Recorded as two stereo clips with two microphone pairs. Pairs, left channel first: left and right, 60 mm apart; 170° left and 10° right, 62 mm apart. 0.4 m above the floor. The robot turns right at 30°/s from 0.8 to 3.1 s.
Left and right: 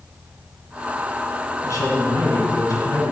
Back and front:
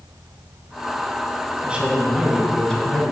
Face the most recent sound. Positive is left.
turn(degrees=105)